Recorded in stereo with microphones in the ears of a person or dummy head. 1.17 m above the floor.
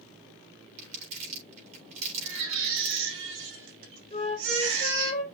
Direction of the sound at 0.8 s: 45° right (ahead or behind).